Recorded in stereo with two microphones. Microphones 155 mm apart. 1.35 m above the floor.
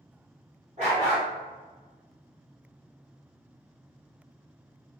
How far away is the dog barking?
About 1.7 m.